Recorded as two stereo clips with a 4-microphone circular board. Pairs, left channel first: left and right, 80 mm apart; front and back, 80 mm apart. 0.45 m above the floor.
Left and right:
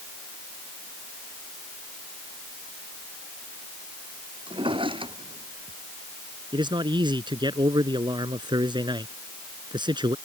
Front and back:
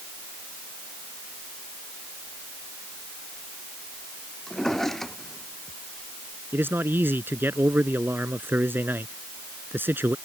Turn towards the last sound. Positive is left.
turn(degrees=-115)